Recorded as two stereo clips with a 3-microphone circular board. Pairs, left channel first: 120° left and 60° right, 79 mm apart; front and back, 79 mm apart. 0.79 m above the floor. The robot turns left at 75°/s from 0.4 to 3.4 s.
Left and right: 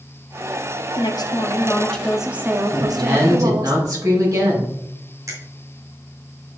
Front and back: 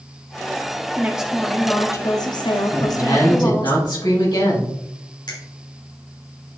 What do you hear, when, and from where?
1.0 s a woman speaking: 115° left, 1.2 m; by 3.7 s 70° right, 1.2 m
2.7 s a woman speaking: 30° left, 4 m; by 4.8 s 20° right, 4 m
5.3 s a finger snap: 20° right, 3 m